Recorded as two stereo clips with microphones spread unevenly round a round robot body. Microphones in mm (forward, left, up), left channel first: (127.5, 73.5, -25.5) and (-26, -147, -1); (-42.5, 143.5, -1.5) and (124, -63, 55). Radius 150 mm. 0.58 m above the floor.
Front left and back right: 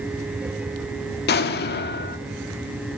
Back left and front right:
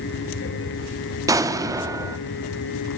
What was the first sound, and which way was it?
An explosion, 35° left.